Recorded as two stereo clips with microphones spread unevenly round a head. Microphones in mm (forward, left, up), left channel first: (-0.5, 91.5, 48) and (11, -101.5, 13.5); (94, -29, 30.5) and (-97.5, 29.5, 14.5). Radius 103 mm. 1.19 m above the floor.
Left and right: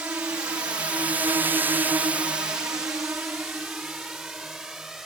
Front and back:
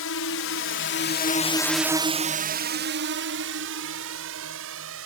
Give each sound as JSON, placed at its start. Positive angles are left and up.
{"t": 0.0, "sound": "a drone", "azimuth_deg": -5}